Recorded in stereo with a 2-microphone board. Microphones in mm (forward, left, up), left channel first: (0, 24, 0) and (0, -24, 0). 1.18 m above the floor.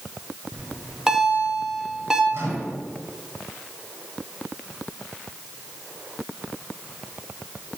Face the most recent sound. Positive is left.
turn(degrees=-55)  # may be behind; listen again after turning